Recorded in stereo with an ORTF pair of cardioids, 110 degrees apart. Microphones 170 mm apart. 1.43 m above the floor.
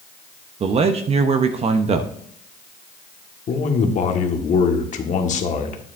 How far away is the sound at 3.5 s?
About 1.4 m.